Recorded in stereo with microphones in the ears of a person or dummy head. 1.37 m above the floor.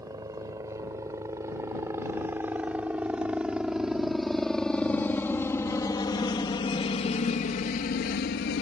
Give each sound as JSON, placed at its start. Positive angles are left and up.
{"t": 0.0, "sound": "a helicopter", "side_deg": -20}